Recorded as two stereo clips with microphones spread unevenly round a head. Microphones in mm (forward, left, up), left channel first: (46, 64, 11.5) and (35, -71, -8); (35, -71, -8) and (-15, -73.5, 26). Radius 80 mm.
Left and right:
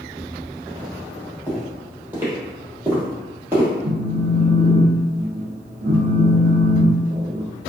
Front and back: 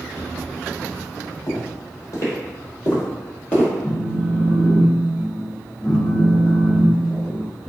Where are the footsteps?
15° right, 1.9 m; by 3.7 s 165° right, 1.8 m.